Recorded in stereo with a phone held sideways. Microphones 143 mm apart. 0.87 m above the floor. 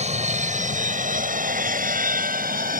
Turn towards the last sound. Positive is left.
turn(degrees=-75)  # may be behind; listen again after turning